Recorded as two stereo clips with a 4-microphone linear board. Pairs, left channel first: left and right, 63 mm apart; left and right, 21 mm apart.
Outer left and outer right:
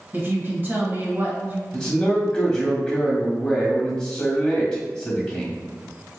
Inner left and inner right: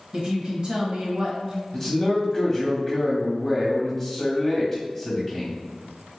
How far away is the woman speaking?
About 1.1 m.